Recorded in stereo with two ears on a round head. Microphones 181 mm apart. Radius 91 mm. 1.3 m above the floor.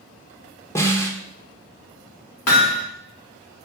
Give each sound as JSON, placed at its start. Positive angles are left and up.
{"t": 0.8, "sound": "a snare drum", "side_deg": 15, "distance_m": 1.8}
{"t": 2.5, "sound": "hammering", "side_deg": 85, "distance_m": 3.0}